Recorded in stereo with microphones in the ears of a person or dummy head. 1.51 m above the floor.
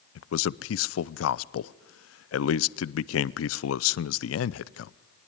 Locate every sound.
0.1 s a man speaking: 85° left, 0.6 m